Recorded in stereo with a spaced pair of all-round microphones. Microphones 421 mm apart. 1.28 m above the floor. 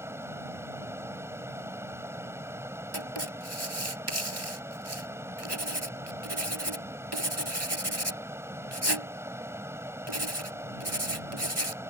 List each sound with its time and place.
0.0 s a fan: 5° right (ahead or behind)
2.9 s writing: 70° right (ahead or behind)